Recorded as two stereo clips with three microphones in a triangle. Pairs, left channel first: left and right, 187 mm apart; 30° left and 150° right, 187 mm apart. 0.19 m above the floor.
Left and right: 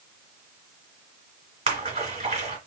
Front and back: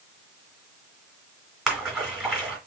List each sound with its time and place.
1.7 s a splash: 65° right, 1.9 m